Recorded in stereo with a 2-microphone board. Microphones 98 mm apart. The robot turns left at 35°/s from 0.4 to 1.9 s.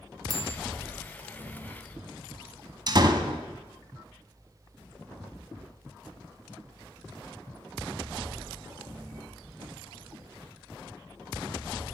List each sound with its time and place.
0.3 s a bell: 40° right (ahead or behind), 1.7 m; by 0.6 s 35° right (ahead or behind), 1.7 m
2.9 s a door slam: 45° right (ahead or behind), 1.2 m